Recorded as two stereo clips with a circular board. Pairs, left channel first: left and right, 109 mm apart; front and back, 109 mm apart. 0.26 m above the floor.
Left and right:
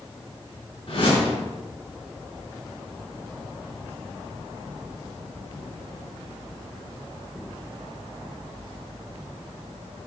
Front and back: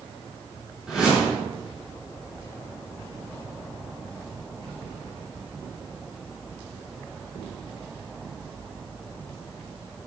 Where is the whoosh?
100° left, 4 m.